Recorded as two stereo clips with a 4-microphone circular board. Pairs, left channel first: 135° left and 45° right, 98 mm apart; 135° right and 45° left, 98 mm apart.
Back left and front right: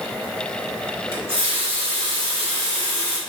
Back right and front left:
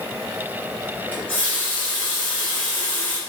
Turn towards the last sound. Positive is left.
turn(degrees=-60)